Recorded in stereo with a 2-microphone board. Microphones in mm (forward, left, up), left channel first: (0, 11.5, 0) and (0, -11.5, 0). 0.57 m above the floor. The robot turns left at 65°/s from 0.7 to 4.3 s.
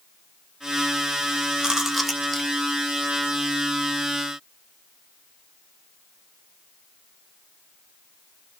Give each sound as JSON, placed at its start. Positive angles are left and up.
{"t": 1.6, "sound": "chewing", "side_deg": -30, "distance_m": 0.7}